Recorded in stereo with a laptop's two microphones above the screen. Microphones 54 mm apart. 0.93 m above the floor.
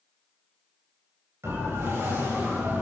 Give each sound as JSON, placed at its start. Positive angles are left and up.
{"t": 1.4, "sound": "a siren", "side_deg": -70, "distance_m": 5.5}